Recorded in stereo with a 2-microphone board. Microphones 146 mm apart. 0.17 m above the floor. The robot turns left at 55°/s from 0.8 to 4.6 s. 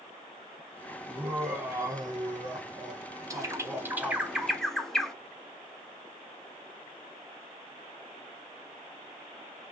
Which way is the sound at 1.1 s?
5° right (ahead or behind).